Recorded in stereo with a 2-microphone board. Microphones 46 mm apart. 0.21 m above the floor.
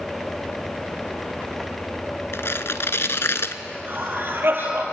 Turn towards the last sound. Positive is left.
turn(degrees=-55)  # may be behind; listen again after turning